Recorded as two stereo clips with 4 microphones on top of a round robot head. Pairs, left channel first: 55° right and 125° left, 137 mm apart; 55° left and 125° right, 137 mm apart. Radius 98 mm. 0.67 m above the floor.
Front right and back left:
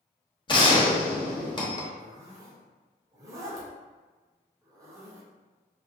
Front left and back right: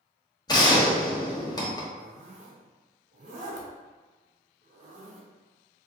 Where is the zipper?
165° right, 0.5 m.